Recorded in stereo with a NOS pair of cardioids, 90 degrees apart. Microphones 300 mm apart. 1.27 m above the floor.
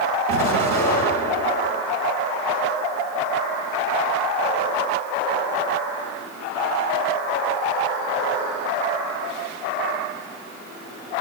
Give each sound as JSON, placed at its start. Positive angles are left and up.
{"t": 0.3, "sound": "an explosion", "azimuth_deg": -70, "distance_m": 5.5}